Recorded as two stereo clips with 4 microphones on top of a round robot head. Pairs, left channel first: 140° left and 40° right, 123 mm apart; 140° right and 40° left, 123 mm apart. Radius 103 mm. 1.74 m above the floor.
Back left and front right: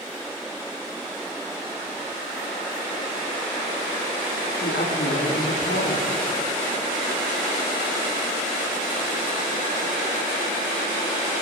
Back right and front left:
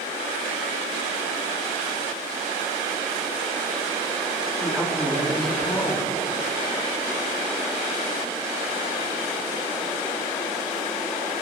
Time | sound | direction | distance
4.6 | a woman speaking | 135° left | 5 m